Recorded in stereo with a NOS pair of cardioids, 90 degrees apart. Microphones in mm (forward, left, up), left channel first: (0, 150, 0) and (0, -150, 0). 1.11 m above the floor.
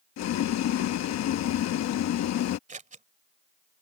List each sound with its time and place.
0.2 s boiling: 65° left
2.7 s scissors: 25° right